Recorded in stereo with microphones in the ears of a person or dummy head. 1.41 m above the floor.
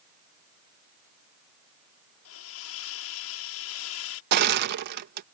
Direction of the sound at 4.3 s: 55° right (ahead or behind).